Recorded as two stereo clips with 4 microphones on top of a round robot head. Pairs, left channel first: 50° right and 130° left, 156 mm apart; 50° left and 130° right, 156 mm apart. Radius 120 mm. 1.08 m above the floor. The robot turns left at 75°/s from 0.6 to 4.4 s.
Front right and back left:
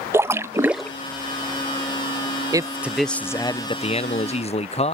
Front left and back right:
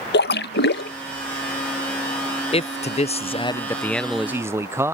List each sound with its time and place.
0.1 s a splash: 55° left; by 0.9 s 35° left
2.5 s a man speaking: 75° left; by 5.0 s 65° right